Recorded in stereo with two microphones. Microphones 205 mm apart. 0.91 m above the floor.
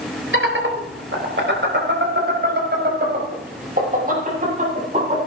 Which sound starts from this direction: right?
Laughter, at 0.3 s.